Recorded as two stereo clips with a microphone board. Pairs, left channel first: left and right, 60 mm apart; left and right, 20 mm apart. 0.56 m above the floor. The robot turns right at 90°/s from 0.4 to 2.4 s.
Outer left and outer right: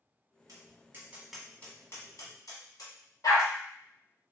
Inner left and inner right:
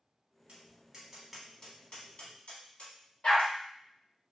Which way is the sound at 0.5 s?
70° right (ahead or behind).